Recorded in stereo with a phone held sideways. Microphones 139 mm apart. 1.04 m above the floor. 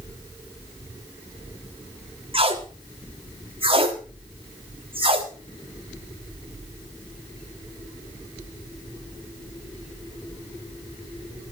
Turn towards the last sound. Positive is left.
turn(degrees=-40)  # may be behind; listen again after turning